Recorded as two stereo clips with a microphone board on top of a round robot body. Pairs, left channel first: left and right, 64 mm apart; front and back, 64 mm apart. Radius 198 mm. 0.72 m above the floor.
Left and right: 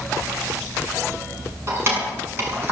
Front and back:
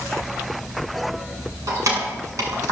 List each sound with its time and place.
1.7 s keys jangling: 145° right, 6.5 m; by 2.7 s 150° right, 6 m